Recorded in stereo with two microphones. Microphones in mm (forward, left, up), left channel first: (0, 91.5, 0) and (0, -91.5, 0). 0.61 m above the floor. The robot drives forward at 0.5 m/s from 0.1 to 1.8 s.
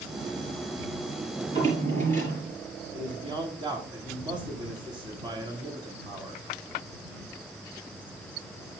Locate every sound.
1.4 s a drawer: 40° right (ahead or behind), 4.5 m
2.9 s a man speaking: 25° right (ahead or behind), 1.6 m